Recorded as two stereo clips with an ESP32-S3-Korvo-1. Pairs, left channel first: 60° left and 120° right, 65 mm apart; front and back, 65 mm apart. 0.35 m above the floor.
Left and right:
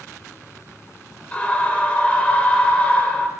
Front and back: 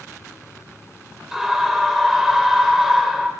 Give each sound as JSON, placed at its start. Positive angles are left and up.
{"t": 1.3, "sound": "a scream", "azimuth_deg": 100, "distance_m": 1.2}